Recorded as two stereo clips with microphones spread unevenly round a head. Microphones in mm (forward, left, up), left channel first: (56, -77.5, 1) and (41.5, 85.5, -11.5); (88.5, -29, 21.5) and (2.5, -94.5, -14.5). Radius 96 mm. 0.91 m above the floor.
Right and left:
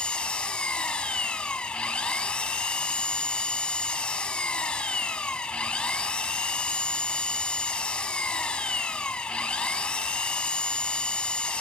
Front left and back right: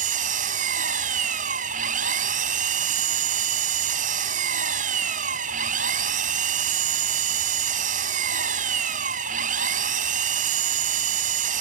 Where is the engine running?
170° right.